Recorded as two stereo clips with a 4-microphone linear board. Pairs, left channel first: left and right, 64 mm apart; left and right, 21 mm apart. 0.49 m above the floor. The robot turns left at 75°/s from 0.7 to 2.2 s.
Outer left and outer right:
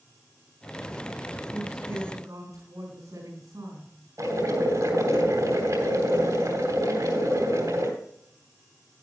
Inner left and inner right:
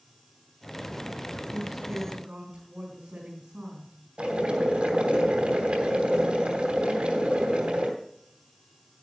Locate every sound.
1.5 s a woman speaking: 25° right, 4.5 m; by 3.9 s 80° right, 4.5 m
4.2 s boiling: 70° right (ahead or behind), 3 m